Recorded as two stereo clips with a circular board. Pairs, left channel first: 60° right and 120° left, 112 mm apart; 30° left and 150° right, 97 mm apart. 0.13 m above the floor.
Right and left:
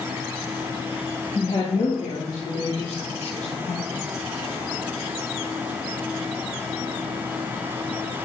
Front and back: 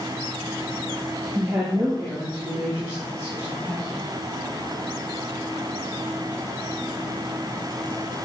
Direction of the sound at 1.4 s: 70° right.